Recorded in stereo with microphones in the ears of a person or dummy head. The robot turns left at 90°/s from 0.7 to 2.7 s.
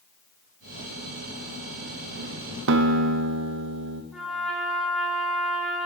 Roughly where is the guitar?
Right.